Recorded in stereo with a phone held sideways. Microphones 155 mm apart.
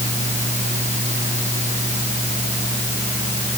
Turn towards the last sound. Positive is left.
turn(degrees=-50)  # may be behind; listen again after turning